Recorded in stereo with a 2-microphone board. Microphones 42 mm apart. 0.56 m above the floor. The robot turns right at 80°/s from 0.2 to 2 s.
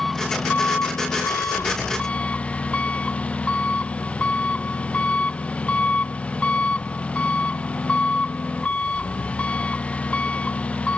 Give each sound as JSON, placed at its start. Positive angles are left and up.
{"t": 0.0, "sound": "an engine running", "azimuth_deg": 10}